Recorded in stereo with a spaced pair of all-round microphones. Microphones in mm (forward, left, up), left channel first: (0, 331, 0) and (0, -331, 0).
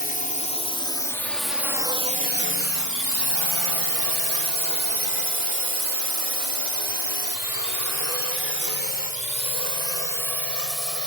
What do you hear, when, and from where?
0.0 s a drone: 15° left (ahead or behind); by 11.1 s 55° right (ahead or behind)